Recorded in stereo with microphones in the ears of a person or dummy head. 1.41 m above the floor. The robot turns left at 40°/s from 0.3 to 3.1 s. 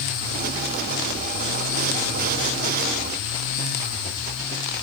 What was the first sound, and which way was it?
Only background noise.